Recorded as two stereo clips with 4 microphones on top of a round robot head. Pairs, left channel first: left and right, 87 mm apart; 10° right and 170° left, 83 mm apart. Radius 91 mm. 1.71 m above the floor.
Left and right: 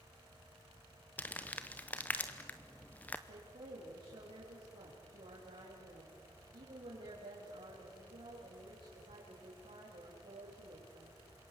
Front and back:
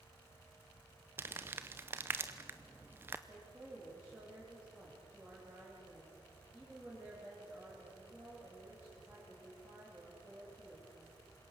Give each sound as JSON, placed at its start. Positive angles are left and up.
{"t": 1.2, "sound": "crumpling", "azimuth_deg": 140, "distance_m": 0.6}
{"t": 3.3, "sound": "a woman speaking", "azimuth_deg": -110, "distance_m": 4.5}